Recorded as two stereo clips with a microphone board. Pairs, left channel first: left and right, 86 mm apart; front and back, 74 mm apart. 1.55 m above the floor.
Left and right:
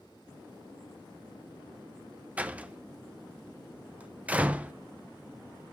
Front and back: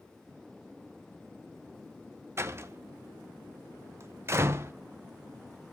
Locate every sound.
2.4 s a door slam: 155° right, 0.6 m